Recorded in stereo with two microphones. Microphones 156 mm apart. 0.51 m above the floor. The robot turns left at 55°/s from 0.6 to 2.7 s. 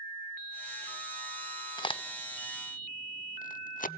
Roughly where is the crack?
Left.